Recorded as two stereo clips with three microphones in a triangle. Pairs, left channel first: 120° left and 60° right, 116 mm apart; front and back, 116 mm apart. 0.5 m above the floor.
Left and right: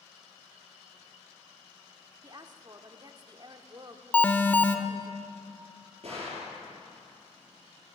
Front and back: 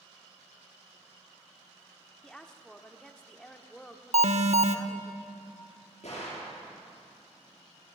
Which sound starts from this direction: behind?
An alarm, at 4.1 s.